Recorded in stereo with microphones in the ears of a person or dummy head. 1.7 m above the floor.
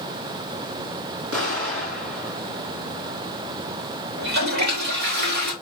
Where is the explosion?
75° right (ahead or behind), 2.5 m.